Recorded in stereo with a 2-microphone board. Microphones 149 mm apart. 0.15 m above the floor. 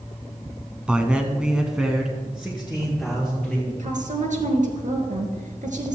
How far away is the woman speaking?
About 2.5 m.